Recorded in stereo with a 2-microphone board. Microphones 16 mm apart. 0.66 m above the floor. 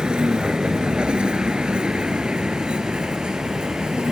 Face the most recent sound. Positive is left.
turn(degrees=-85)